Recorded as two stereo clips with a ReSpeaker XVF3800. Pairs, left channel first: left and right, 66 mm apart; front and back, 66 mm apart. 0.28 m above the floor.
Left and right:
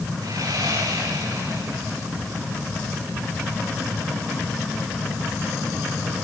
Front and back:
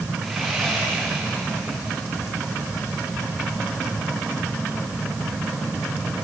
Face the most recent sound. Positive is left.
turn(degrees=-90)